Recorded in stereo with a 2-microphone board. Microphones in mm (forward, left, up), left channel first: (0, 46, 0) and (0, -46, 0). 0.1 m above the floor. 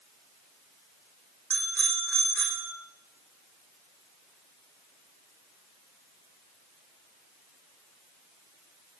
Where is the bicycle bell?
5° left (ahead or behind), 4.5 m.